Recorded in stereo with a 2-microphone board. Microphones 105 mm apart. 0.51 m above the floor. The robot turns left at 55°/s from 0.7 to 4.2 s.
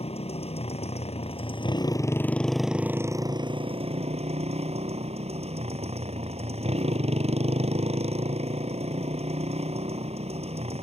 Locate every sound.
0.0 s a motorcycle: 105° left; by 10.8 s 90° right